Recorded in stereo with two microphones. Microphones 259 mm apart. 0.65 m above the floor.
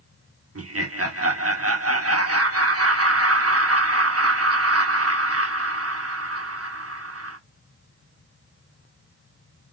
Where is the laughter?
65° right (ahead or behind), 1.4 m.